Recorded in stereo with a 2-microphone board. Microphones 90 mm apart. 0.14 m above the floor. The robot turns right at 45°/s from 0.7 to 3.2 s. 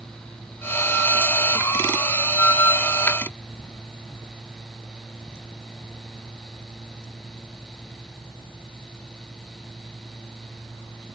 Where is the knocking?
No knocking in this recording.